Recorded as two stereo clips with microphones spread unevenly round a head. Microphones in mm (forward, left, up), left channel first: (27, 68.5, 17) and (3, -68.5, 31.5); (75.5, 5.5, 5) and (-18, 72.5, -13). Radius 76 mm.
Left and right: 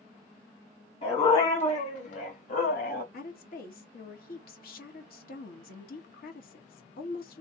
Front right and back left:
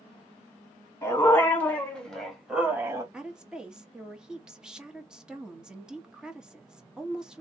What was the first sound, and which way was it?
A dog barking, 30° left.